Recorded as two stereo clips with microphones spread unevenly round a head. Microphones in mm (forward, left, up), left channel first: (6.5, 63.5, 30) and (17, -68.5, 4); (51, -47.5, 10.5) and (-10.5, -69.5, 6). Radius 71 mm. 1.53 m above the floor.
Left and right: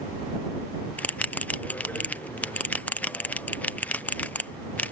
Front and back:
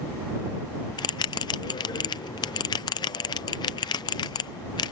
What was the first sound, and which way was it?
A bell, 15° left.